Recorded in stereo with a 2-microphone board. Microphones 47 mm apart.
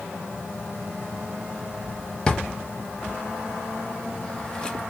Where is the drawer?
20° left (ahead or behind), 0.6 m.